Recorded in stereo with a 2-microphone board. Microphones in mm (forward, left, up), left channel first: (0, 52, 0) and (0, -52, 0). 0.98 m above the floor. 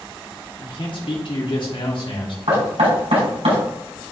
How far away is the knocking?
About 5 m.